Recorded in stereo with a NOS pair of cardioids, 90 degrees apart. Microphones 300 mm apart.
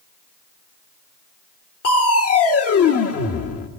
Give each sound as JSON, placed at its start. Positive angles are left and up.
{"t": 1.8, "sound": "crushing", "azimuth_deg": 50, "distance_m": 1.3}